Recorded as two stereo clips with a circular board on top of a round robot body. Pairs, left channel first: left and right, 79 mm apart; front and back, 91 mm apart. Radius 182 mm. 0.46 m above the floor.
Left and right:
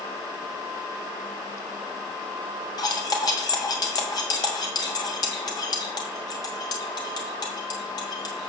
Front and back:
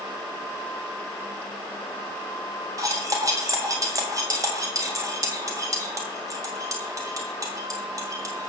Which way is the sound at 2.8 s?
125° left.